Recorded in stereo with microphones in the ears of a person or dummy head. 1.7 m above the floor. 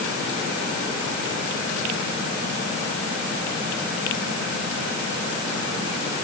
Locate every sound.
Only background noise.